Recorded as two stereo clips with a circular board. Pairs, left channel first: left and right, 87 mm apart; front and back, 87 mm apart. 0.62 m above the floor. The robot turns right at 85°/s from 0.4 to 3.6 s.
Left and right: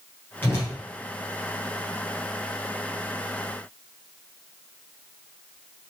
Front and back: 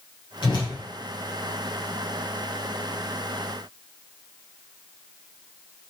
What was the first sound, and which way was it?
A whoosh, 25° left.